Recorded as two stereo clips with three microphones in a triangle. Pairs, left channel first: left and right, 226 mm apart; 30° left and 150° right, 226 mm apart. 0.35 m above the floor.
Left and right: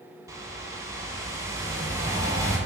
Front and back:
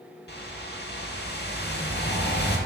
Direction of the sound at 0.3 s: 15° right.